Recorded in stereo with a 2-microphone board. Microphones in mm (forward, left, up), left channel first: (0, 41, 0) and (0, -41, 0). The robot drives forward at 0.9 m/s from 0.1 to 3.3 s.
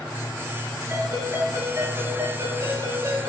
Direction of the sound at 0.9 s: 40° right (ahead or behind).